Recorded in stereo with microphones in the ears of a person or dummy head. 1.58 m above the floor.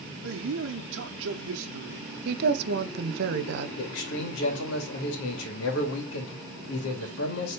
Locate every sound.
0.2 s a man speaking: 70° right (ahead or behind), 0.8 m
2.2 s a woman speaking: 60° right (ahead or behind), 1.1 m
3.8 s a man speaking: 75° left (ahead or behind), 2.5 m